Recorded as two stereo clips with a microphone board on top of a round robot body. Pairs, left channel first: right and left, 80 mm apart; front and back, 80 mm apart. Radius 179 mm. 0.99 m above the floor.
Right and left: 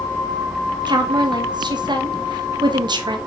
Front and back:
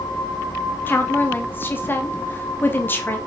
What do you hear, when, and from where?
0.9 s a woman speaking: 65° left, 1.8 m